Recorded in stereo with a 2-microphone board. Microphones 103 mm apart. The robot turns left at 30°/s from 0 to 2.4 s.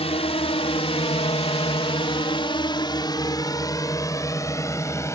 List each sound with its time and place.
0.0 s a drone: 80° left; by 5.2 s 30° left (ahead or behind)